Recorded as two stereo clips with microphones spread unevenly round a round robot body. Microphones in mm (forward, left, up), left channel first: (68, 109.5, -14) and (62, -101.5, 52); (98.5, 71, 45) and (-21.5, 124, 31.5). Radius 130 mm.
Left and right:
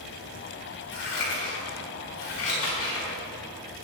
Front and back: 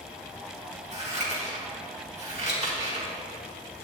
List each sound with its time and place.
0.9 s scissors: 120° left, 5 m